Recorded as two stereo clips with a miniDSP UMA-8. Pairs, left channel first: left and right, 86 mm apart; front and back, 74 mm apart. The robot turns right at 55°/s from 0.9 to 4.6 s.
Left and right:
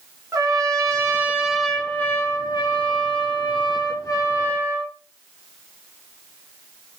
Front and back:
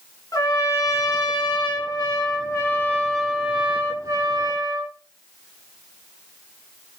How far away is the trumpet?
About 2.5 m.